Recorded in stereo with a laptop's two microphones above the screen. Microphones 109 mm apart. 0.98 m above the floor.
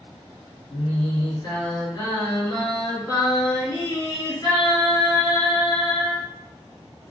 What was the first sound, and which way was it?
Singing, 45° left (ahead or behind).